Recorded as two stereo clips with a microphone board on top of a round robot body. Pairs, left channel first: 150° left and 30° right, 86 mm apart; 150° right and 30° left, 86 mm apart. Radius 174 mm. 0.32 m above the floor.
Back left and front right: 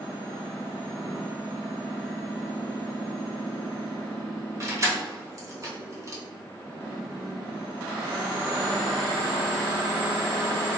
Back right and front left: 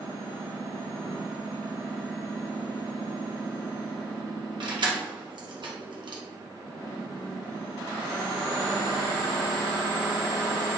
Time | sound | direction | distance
4.6 | keys jangling | 20° left | 1.0 m